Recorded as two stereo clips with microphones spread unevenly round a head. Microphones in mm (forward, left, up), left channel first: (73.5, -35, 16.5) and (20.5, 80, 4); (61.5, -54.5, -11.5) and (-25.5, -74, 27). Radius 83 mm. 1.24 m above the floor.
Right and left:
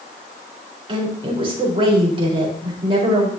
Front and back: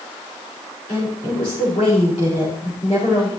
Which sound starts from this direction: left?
A woman speaking, at 0.9 s.